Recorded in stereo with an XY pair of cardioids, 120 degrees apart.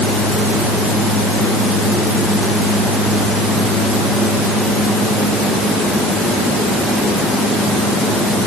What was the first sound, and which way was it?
Only background noise.